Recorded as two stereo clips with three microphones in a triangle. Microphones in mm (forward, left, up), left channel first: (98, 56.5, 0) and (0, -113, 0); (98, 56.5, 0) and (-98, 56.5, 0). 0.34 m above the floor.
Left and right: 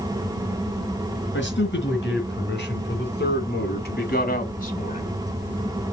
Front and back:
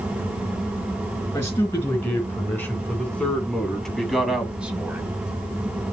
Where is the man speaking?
75° left, 4 m; by 5.2 s 105° left, 1.7 m.